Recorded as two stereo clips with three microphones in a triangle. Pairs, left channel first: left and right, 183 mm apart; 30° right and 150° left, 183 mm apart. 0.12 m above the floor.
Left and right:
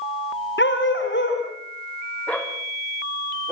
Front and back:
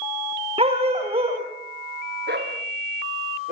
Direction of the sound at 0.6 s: 90° left.